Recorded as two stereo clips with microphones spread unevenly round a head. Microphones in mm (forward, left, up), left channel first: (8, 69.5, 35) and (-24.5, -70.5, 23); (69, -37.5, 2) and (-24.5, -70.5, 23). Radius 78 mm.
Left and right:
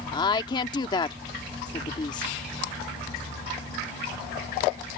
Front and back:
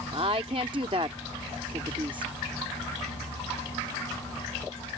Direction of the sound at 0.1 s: 140° left.